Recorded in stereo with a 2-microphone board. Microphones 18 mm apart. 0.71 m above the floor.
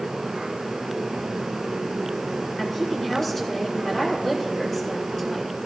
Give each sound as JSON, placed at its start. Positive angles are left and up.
{"t": 2.6, "sound": "a woman speaking", "side_deg": 20, "distance_m": 6.0}